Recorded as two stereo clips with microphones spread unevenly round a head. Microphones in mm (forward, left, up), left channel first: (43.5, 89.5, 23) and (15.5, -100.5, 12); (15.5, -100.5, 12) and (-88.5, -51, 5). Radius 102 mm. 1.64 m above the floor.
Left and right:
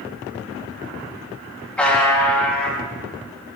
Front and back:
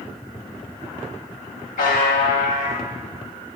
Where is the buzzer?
Straight ahead, 2.5 m.